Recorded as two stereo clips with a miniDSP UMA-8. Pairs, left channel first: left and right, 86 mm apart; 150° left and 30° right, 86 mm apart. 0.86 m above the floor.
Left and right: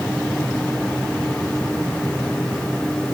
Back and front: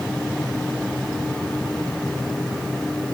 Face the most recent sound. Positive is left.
No sound to turn to.